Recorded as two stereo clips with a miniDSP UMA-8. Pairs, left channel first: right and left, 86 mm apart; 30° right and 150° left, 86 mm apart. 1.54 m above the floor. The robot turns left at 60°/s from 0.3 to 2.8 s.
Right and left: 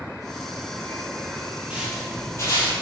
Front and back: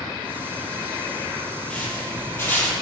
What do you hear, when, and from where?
1.7 s footsteps: 40° left, 1.7 m; by 2.7 s 110° right, 2.0 m